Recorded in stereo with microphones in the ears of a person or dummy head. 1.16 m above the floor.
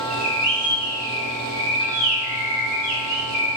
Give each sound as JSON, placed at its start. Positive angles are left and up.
{"t": 0.1, "sound": "a bird", "side_deg": -50, "distance_m": 1.3}